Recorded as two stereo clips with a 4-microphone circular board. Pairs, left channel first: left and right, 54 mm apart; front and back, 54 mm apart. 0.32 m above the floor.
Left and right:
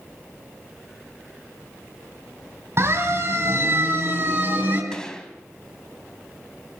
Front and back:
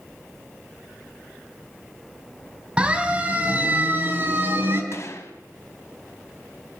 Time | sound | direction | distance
2.8 | a siren | 110° right | 3.5 m
4.9 | a gunshot | 15° left | 2.5 m